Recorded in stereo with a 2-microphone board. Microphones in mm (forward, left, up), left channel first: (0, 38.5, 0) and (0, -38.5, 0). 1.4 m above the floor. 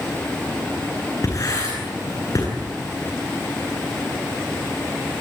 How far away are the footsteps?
I don't hear footsteps.